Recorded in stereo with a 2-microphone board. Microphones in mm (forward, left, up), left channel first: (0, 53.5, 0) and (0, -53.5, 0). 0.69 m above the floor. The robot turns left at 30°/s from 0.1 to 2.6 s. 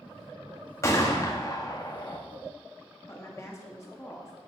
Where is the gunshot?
135° left, 1.3 m; by 2.2 s 95° left, 1.3 m.